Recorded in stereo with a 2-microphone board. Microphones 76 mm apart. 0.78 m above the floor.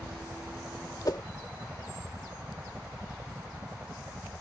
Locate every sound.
0.0 s a helicopter: 15° right (ahead or behind); by 4.4 s 25° right (ahead or behind)
1.1 s a whoosh: 55° left (ahead or behind)